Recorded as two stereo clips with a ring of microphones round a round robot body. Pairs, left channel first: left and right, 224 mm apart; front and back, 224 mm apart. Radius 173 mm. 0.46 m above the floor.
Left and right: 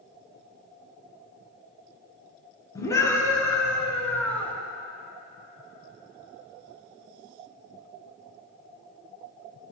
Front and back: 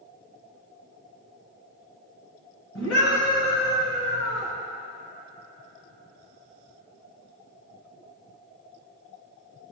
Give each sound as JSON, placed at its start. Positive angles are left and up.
{"t": 2.8, "sound": "a scream", "azimuth_deg": 15, "distance_m": 6.0}